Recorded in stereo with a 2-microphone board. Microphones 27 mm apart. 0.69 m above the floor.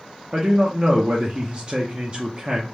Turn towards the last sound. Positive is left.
turn(degrees=-40)  # may be behind; listen again after turning